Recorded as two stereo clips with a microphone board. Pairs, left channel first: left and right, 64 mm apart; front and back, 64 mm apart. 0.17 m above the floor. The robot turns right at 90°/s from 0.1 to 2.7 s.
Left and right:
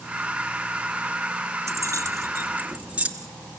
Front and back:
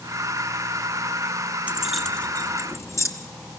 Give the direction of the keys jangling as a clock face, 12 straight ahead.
4 o'clock.